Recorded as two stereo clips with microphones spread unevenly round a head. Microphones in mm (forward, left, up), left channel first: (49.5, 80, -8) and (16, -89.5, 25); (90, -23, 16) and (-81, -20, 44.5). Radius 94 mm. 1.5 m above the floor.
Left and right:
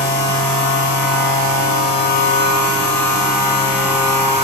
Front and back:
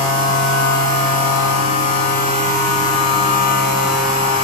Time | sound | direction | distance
0.0 | a machine running | 50° left | 7 m